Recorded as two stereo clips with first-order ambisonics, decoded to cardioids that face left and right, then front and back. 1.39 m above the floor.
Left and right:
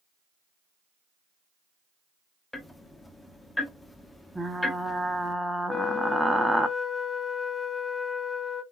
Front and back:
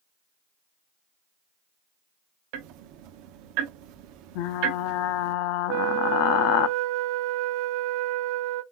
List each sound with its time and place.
2.5 s ticking: 170° left, 0.7 m
4.3 s frying: 5° right, 0.7 m
5.7 s a flute: 175° left, 0.8 m